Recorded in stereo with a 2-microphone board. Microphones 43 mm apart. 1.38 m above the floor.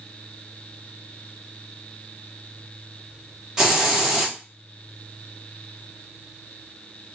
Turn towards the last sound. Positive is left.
turn(degrees=-15)  # may be behind; listen again after turning